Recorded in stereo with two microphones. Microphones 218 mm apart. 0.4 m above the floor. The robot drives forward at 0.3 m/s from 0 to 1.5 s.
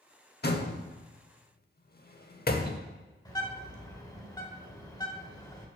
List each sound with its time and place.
0.4 s a door slam: 50° left (ahead or behind), 0.7 m; by 2.8 s 45° left (ahead or behind), 0.7 m
3.2 s a bird: 20° left (ahead or behind), 1.6 m